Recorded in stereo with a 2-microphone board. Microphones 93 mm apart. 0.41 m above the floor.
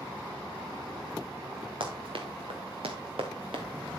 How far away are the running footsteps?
About 3 m.